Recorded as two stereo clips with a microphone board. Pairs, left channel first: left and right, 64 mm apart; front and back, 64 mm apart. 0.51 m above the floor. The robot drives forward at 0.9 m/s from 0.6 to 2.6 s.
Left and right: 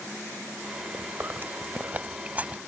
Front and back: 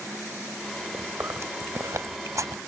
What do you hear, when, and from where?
0.9 s chewing: 130° right; by 2.6 s 155° right